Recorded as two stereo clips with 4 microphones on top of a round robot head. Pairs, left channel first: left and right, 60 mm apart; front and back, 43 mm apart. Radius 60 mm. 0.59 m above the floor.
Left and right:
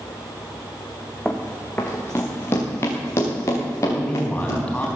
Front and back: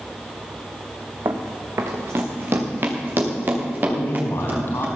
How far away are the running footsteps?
About 1.9 m.